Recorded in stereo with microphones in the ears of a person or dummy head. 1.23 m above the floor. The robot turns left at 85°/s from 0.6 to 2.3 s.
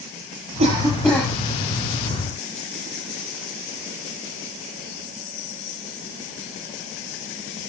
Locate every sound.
0.6 s a cough: 140° right, 7.5 m; by 1.3 s 160° left, 7.5 m